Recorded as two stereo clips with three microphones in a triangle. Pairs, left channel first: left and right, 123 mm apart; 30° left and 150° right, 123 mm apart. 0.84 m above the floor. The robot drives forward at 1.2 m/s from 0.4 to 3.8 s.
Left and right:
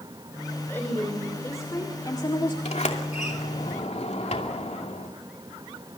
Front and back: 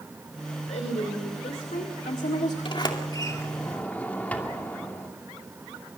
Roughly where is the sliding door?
Left.